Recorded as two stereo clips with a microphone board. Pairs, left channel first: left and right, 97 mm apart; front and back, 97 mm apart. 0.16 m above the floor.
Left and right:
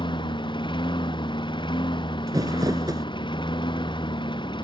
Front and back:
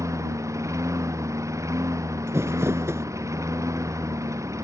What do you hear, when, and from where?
0.0 s a lawn mower: 125° left
2.3 s crumpling: 125° right